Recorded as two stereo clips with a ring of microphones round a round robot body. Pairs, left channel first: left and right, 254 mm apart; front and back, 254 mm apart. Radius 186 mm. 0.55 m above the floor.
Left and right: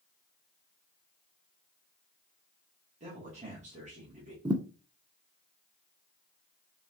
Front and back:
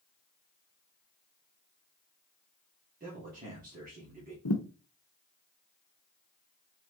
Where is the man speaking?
140° right, 1.6 m.